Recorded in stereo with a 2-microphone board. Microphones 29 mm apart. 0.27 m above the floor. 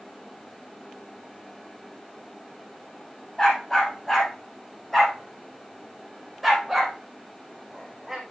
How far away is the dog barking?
About 7.5 m.